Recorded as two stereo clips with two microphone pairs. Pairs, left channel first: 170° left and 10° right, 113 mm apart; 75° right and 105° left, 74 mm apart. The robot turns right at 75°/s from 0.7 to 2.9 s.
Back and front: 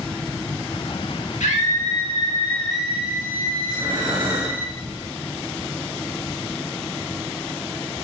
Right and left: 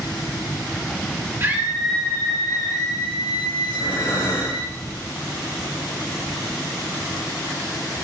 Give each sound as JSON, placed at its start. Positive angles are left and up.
{"t": 1.4, "sound": "a scream", "azimuth_deg": 160, "distance_m": 2.5}
{"t": 3.6, "sound": "breathing", "azimuth_deg": -55, "distance_m": 5.0}